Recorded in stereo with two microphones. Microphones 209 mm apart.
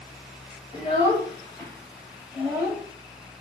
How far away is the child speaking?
About 1.4 m.